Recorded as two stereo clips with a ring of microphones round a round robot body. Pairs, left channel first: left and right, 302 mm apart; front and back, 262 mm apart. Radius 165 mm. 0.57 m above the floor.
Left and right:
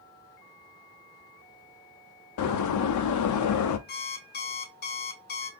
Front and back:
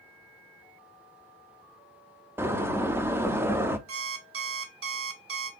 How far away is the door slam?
About 0.6 m.